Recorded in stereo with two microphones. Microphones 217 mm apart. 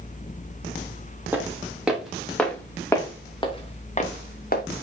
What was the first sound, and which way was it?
Footsteps, 10° right (ahead or behind).